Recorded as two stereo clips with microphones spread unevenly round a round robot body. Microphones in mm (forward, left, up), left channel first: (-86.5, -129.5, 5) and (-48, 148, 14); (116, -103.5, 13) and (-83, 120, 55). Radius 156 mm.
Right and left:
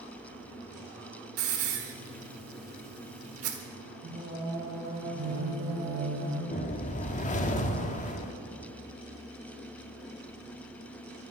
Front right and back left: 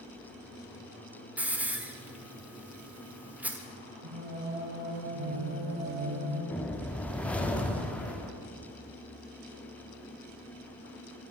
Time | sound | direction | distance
1.4 | a hiss | 40° left | 1.4 m
4.0 | singing | 140° left | 5.5 m
6.5 | a whoosh | 115° right | 1.1 m